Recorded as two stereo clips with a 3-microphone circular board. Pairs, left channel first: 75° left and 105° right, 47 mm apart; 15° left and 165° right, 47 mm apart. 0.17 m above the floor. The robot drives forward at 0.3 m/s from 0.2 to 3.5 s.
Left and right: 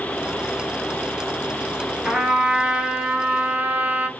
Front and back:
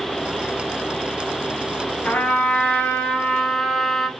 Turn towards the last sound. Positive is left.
turn(degrees=-65)